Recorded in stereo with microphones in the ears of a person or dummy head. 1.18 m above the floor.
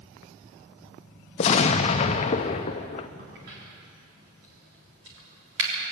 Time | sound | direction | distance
1.4 | an explosion | 30° left (ahead or behind) | 0.6 m
3.2 | a crack | 60° right (ahead or behind) | 3.5 m